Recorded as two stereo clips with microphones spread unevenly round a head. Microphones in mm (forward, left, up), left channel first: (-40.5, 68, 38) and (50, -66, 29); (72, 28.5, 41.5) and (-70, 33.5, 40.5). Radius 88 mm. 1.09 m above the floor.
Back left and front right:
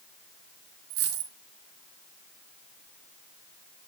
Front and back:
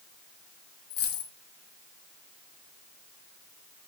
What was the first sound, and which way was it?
A dropped coin, 30° right.